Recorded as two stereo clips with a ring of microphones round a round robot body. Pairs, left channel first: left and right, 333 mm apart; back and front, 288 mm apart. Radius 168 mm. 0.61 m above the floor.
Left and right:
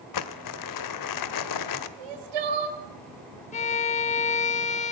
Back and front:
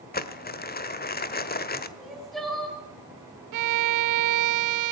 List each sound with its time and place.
0.1 s crumpling: 120° left, 1.5 m
2.0 s crying: 90° right, 2.5 m
3.5 s a violin: 20° left, 0.7 m